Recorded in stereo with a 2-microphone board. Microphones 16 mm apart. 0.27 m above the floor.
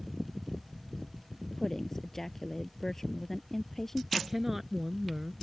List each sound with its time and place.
1.6 s a woman speaking: 20° left (ahead or behind)
4.2 s a woman speaking: 15° right (ahead or behind)